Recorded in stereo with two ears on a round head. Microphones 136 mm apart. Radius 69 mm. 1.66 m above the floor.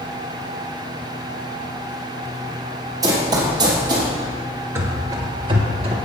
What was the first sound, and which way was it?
Running footsteps, 25° right (ahead or behind).